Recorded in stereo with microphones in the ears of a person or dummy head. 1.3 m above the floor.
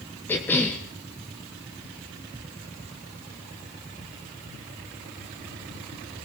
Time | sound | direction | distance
0.3 | a cough | 10° left (ahead or behind) | 1.2 m